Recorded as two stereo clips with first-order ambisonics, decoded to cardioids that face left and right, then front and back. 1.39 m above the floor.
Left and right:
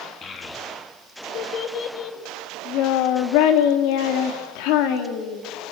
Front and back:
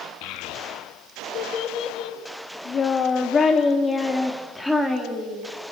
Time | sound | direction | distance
0.2 | a child speaking | 25° left | 2 m